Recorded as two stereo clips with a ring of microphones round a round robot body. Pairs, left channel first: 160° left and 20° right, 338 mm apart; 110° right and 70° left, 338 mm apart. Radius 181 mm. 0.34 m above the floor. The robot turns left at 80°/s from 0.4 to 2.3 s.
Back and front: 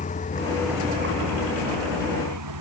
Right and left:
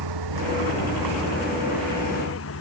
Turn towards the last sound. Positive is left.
turn(degrees=-60)